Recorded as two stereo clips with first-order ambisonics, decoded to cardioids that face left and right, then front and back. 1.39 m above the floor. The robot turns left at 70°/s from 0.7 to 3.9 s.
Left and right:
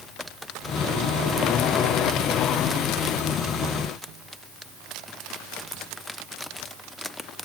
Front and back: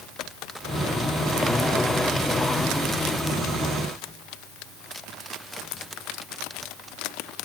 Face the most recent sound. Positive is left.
No sound to turn to.